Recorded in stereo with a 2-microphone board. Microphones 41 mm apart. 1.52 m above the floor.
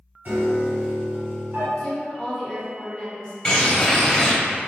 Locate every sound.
0.2 s a piano: 45° right (ahead or behind), 1.4 m
1.8 s a woman speaking: 15° left (ahead or behind), 0.9 m
3.5 s a bird: 25° left (ahead or behind), 0.6 m